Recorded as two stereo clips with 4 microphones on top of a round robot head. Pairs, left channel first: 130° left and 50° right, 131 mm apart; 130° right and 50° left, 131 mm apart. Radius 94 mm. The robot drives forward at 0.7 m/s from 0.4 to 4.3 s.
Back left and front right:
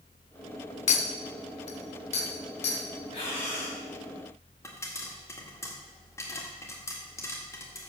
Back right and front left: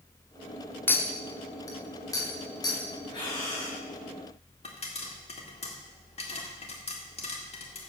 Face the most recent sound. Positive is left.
turn(degrees=-165)